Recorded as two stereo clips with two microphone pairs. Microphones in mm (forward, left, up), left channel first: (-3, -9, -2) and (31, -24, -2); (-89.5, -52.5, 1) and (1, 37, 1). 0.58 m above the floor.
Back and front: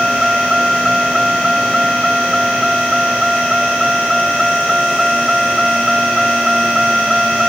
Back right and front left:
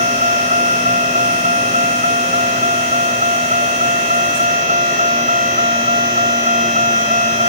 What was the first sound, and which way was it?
A vehicle, 60° left.